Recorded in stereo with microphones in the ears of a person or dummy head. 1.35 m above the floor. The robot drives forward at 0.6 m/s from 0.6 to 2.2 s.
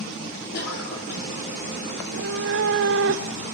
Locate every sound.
0.5 s a cough: 50° left (ahead or behind), 4.5 m; by 1.3 s 45° left (ahead or behind), 4.5 m
2.0 s a cat meowing: 65° right (ahead or behind), 1.7 m